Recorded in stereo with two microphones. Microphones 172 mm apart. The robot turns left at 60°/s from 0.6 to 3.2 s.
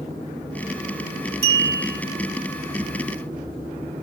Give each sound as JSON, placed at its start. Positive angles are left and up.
{"t": 1.4, "sound": "a clink", "azimuth_deg": 165, "distance_m": 2.5}